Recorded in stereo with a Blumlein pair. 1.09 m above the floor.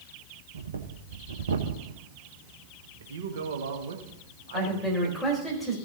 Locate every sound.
0.5 s breathing: 65° right, 1.0 m
3.0 s a man speaking: 60° right, 1.6 m
4.5 s a man speaking: 5° left, 4 m